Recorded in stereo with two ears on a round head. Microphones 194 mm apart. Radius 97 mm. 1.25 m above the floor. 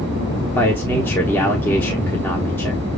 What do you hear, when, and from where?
0.6 s a man speaking: 10° left (ahead or behind), 1.0 m